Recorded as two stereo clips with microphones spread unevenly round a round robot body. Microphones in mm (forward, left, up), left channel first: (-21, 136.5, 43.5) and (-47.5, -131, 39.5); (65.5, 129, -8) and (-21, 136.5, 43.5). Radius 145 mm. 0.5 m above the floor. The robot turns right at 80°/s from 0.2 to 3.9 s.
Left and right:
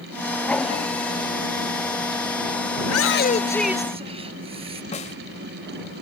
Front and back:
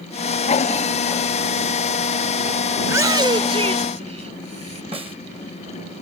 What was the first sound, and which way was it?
A shout, 110° left.